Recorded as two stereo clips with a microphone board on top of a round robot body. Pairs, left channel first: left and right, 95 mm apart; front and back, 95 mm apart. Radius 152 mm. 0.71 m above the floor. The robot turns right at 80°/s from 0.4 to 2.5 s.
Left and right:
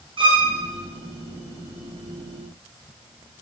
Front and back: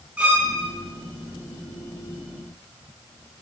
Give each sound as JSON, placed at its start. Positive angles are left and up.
{"t": 0.2, "sound": "a violin", "azimuth_deg": -105, "distance_m": 1.1}